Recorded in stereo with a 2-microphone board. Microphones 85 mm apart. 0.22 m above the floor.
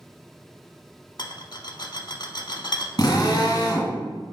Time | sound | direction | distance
1.2 | a rattle | 55° left (ahead or behind) | 0.5 m
3.0 | a drill | 45° left (ahead or behind) | 1.6 m